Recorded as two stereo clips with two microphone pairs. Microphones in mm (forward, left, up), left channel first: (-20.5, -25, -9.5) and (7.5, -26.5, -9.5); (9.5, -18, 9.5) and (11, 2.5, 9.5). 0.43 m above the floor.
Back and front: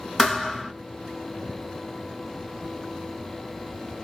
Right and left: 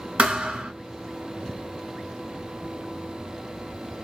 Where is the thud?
105° left, 0.8 m.